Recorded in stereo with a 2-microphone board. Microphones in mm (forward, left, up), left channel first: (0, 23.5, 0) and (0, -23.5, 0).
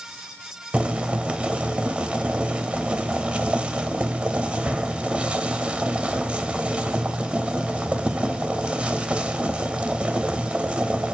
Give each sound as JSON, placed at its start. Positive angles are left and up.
{"t": 0.7, "sound": "boiling", "side_deg": -30, "distance_m": 0.6}